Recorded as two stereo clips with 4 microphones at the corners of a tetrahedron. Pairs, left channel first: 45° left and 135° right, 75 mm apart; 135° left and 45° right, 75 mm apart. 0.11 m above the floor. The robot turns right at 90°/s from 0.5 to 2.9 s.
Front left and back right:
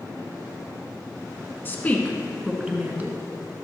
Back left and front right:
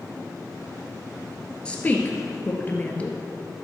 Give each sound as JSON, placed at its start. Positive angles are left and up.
{"t": 1.6, "sound": "a woman speaking", "azimuth_deg": 70, "distance_m": 1.5}